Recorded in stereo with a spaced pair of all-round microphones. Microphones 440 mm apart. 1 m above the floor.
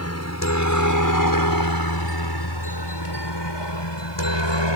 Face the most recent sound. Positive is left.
turn(degrees=75)  # may be behind; listen again after turning